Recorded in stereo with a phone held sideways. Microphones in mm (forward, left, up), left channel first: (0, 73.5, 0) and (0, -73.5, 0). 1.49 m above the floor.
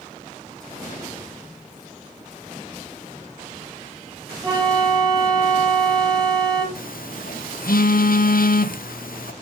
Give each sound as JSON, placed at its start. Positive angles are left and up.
{"t": 4.4, "sound": "a flute", "side_deg": -30, "distance_m": 5.0}
{"t": 6.8, "sound": "a phone buzzing", "side_deg": 75, "distance_m": 0.9}